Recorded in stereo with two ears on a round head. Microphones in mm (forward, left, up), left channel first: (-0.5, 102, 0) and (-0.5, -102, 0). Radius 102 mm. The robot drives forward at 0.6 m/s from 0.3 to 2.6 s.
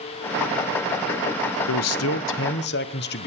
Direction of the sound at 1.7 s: 85° left.